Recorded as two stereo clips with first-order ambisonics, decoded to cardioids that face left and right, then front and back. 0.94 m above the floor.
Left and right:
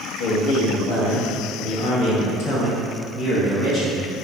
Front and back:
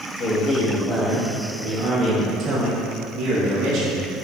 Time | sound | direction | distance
0.2 | a man speaking | 70° left | 1.5 m